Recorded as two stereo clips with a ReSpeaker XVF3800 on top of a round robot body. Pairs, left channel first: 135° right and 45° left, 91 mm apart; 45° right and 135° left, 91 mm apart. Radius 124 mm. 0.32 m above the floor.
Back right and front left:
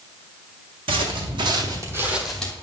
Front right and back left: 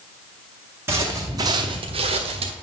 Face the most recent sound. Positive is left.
turn(degrees=150)